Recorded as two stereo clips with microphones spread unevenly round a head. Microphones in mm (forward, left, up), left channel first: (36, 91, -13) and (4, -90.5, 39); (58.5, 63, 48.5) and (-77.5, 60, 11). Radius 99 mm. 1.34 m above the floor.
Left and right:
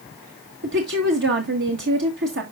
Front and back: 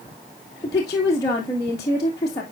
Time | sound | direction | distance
0.6 | a woman speaking | 70° right | 1.9 m